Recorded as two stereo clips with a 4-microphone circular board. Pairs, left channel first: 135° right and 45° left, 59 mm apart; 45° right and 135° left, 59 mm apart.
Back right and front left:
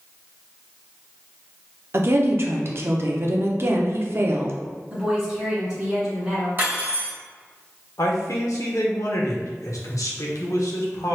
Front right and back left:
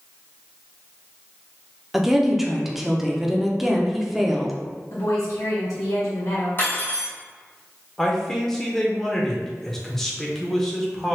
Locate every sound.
1.9 s a woman speaking: 50° left, 0.5 m
4.9 s a woman speaking: 30° right, 1.3 m
6.6 s cutlery clinking: straight ahead, 1.7 m
8.0 s a man speaking: 130° right, 0.7 m